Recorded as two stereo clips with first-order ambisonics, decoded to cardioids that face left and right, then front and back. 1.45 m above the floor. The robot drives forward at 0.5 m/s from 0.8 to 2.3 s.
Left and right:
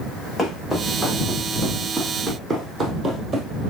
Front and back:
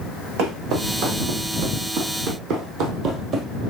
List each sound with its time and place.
0.4 s footsteps: 170° left, 3.5 m; by 3.5 s 150° right, 1.6 m